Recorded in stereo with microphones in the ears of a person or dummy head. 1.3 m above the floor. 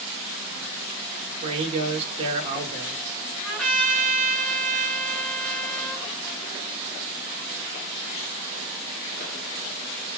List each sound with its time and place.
1.4 s a man speaking: 30° right (ahead or behind), 1.1 m
3.4 s a trumpet: centre (ahead or behind), 2 m